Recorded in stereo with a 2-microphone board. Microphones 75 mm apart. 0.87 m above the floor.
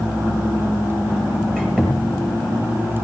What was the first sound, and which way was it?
A squeak, 5° left (ahead or behind).